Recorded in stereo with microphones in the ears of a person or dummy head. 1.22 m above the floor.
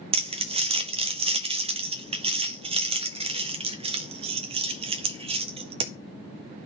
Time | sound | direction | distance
0.1 | crumpling | 25° right (ahead or behind) | 0.6 m